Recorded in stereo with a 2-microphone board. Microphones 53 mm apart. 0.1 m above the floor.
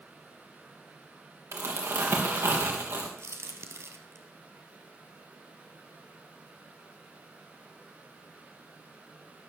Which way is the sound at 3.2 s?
55° right (ahead or behind).